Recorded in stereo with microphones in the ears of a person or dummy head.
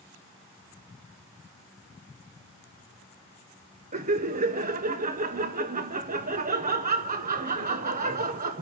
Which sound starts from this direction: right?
Laughter, at 3.9 s.